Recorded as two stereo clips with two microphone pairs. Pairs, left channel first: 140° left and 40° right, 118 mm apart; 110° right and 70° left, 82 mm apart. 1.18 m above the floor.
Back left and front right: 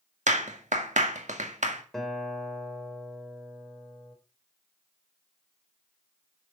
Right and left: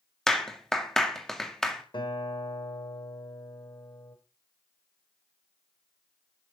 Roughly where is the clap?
Ahead right.